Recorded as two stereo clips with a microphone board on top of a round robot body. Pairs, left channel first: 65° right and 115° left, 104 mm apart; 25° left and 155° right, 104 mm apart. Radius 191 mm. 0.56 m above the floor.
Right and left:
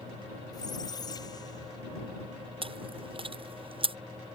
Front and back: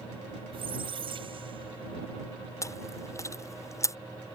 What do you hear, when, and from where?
0.5 s a squeak: 120° right
2.6 s chewing: 85° left